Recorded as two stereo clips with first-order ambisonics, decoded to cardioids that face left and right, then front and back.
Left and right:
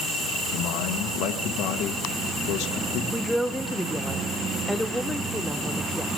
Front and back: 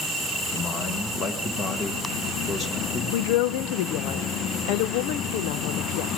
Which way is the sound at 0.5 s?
60° left.